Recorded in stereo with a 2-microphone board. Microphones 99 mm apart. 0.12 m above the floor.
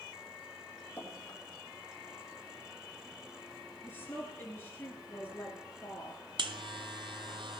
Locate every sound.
1.0 s dripping: 15° left (ahead or behind), 4.5 m
3.8 s a woman speaking: 20° left (ahead or behind), 2 m
6.4 s a buzzer: 60° right (ahead or behind), 0.9 m